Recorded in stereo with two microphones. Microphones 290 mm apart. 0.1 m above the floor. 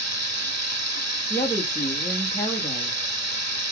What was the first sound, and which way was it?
Running water, 65° right (ahead or behind).